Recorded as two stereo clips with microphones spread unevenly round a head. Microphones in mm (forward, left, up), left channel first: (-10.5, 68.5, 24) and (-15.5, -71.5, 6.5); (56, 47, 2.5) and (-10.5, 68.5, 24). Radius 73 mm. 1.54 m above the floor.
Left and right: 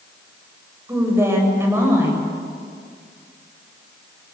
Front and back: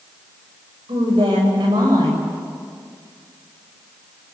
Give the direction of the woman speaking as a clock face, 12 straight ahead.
6 o'clock.